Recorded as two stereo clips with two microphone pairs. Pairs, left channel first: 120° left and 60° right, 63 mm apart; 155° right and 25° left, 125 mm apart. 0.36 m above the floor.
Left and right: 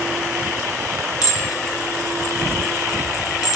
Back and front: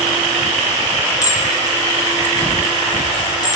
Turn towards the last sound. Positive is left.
turn(degrees=145)